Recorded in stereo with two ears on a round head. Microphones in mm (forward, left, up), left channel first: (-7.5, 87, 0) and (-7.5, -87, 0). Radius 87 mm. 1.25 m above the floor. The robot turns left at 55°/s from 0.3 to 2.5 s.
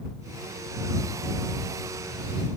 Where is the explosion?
No explosion in this recording.